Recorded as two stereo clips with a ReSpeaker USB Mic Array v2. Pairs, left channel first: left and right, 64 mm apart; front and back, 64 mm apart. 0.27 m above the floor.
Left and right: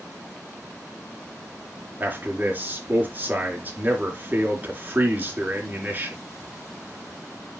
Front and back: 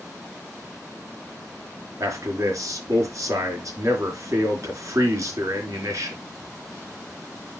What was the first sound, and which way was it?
A man speaking, 150° right.